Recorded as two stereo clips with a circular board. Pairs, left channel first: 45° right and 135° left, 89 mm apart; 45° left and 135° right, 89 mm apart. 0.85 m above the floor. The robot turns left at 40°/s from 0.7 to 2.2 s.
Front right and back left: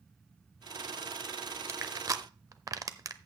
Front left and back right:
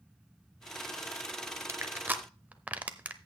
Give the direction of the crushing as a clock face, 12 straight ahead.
6 o'clock.